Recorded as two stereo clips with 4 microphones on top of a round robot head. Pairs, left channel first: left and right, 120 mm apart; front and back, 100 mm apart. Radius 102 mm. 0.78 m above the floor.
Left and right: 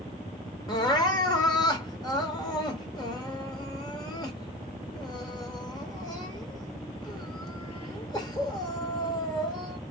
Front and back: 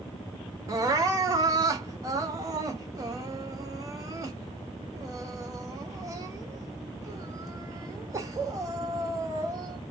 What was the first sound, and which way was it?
Crying, 135° left.